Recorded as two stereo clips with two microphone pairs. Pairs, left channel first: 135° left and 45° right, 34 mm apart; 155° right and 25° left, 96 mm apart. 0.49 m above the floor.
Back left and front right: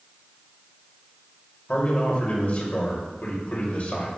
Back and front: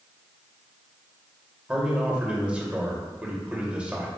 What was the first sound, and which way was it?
A man speaking, 100° left.